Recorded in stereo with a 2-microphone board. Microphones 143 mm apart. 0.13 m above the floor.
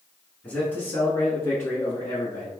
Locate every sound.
0.4 s a man speaking: 15° left (ahead or behind), 1.1 m; by 2.5 s 25° left (ahead or behind), 1.3 m